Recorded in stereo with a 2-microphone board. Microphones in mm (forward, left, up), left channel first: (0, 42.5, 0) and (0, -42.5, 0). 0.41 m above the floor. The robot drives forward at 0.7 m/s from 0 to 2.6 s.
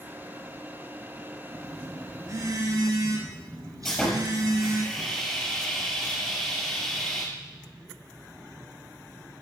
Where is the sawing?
Centre (ahead or behind), 7.5 m.